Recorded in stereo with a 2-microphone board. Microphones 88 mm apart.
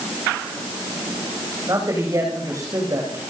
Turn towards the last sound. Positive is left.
turn(degrees=-40)  # may be behind; listen again after turning